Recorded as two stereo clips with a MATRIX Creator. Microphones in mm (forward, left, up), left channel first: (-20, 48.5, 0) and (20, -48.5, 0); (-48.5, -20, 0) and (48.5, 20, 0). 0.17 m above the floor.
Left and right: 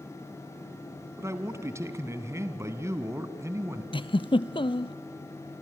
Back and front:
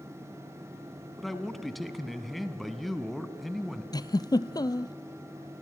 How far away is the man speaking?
About 1.4 m.